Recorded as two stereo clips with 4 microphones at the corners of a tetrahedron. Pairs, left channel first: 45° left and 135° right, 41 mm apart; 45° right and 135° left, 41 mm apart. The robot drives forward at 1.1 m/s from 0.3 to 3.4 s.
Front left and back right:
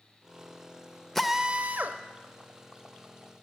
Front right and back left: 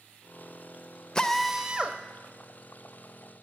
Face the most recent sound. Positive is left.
turn(degrees=180)